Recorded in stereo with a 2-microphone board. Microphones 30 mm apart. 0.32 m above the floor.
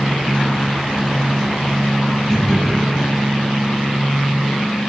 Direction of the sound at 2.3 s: 20° left (ahead or behind).